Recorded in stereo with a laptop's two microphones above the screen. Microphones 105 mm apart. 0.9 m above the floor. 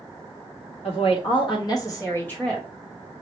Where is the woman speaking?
60° left (ahead or behind), 1.5 m; by 2.7 s 5° left (ahead or behind), 1.2 m.